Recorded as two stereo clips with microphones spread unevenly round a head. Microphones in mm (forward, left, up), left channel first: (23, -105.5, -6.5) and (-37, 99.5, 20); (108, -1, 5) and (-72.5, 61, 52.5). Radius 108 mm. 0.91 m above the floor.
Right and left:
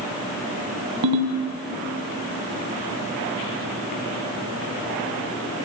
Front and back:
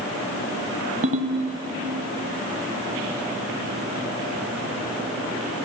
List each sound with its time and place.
1.0 s a ringtone: 115° left, 2.5 m